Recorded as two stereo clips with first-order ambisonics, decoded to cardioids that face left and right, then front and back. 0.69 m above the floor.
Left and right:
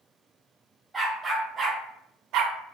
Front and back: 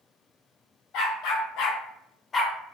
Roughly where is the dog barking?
Ahead.